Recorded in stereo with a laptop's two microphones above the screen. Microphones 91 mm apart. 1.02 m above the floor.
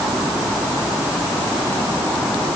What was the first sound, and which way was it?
Only background noise.